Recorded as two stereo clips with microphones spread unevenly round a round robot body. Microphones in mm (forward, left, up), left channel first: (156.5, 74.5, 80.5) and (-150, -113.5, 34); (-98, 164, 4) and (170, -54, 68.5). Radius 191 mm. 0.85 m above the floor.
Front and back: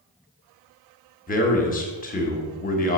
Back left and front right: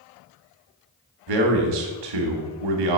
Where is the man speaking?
40° right, 1.4 m.